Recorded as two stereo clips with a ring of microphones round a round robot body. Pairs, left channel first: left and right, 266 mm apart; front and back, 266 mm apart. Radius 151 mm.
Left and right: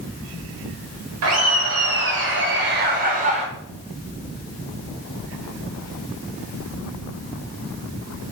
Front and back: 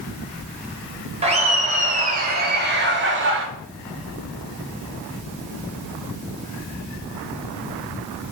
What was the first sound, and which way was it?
Laughter, 115° right.